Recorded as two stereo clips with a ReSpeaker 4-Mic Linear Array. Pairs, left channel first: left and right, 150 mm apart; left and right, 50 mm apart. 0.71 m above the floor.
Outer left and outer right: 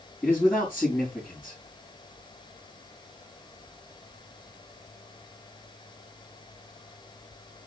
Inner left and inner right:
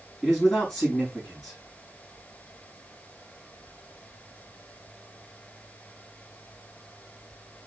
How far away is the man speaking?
About 4.5 m.